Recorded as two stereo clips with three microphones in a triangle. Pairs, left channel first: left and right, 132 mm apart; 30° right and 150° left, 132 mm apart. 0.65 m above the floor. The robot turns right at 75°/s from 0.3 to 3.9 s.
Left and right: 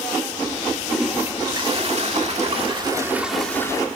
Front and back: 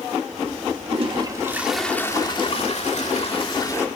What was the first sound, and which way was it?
A toilet flushing, 175° left.